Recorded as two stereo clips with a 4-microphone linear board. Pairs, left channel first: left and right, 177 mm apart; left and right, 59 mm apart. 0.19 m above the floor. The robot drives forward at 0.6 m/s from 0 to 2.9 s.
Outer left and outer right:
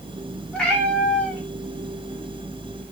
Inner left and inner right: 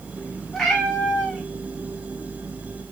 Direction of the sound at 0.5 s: 5° left (ahead or behind).